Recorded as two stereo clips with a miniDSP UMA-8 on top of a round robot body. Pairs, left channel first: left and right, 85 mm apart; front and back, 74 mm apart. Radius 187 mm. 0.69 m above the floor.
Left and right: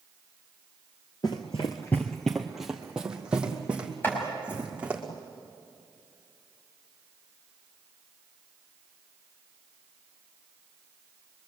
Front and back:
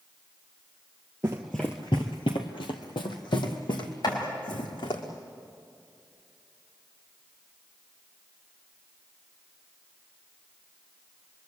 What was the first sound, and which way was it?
Running footsteps, 130° left.